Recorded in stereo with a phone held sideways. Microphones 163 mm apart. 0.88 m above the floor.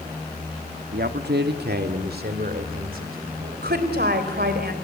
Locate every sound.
0.9 s a man speaking: 70° right (ahead or behind), 1.2 m; by 3.7 s 60° right (ahead or behind), 4 m
3.6 s a woman speaking: 75° right (ahead or behind), 3 m